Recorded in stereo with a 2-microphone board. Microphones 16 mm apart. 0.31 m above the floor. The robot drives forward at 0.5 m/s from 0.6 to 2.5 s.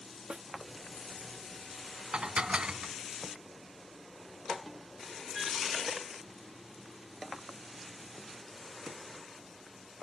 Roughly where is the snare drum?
Right.